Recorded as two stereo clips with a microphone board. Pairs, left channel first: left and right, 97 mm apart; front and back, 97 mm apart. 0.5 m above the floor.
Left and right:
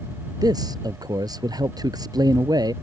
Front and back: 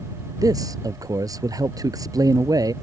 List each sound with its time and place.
0.4 s a man speaking: 135° right